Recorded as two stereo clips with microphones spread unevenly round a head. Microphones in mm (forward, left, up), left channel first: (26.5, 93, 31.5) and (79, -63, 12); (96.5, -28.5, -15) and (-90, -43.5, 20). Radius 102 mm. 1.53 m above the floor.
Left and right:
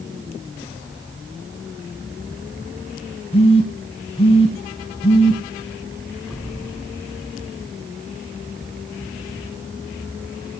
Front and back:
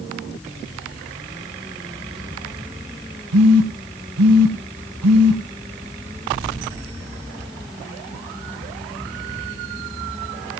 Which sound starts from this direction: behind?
A phone buzzing, at 3.3 s.